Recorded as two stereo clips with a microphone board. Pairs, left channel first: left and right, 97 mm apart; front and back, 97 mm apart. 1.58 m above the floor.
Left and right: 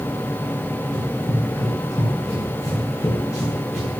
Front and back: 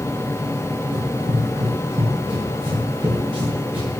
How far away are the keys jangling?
No keys jangling in this recording.